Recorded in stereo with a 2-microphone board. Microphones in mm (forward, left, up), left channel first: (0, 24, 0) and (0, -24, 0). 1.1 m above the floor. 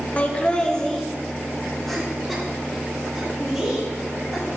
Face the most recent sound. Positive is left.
turn(degrees=0)  # may be behind; listen again after turning